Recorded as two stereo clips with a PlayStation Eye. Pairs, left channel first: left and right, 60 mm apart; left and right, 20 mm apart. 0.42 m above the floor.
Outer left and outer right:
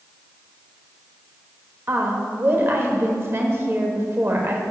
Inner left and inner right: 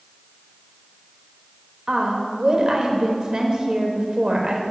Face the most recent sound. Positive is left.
turn(degrees=-40)  # may be behind; listen again after turning